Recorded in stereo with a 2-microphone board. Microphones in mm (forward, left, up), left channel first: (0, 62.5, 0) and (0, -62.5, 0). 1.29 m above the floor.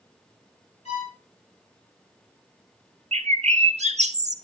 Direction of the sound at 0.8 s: 60° left (ahead or behind).